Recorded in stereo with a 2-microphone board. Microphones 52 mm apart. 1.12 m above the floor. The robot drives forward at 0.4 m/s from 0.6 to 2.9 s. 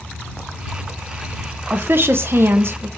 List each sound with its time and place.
1.7 s a woman speaking: 45° right (ahead or behind), 0.6 m; by 2.9 s 50° right (ahead or behind), 0.6 m